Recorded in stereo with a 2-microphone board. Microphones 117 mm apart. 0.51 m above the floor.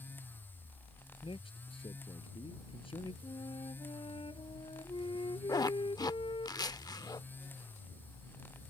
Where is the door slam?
No door slam in this recording.